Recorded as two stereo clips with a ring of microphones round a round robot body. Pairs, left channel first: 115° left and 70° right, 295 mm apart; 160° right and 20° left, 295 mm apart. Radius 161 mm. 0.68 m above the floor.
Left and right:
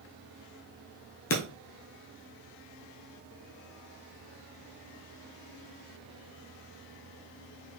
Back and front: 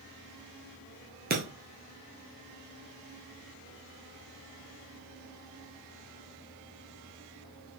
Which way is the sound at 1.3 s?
75° left.